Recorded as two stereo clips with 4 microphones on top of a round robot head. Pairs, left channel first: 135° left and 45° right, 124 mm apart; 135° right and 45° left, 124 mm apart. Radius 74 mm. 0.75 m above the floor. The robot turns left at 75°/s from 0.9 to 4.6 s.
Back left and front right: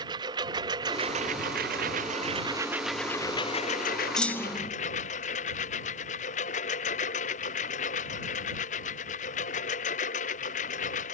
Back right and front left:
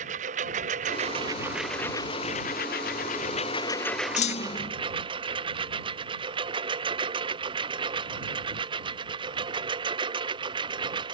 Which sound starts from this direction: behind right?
A clunk, at 4.2 s.